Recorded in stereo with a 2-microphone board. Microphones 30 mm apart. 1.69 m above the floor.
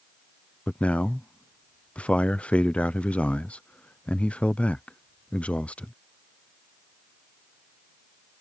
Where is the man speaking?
45° left (ahead or behind).